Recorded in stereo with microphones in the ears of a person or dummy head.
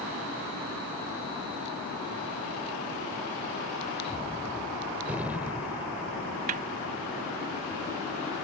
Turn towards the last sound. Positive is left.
turn(degrees=-35)  # may be behind; listen again after turning